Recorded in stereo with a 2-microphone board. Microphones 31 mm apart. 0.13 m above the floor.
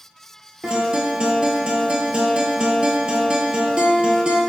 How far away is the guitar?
About 0.6 m.